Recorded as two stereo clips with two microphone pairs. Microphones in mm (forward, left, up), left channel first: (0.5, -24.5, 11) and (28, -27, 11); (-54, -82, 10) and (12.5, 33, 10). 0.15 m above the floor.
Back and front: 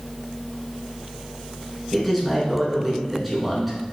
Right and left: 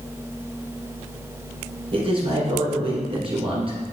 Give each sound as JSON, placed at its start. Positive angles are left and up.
{"t": 1.9, "sound": "a man speaking", "azimuth_deg": 85, "distance_m": 1.7}